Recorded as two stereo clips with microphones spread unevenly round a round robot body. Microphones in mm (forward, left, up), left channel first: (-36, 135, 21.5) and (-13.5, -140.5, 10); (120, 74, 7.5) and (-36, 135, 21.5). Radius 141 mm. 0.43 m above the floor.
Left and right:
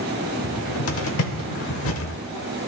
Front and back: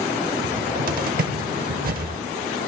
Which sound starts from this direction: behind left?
A cupboard door, at 0.4 s.